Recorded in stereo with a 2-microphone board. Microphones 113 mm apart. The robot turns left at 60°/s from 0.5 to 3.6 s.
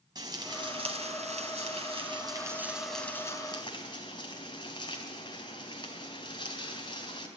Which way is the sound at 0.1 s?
40° right.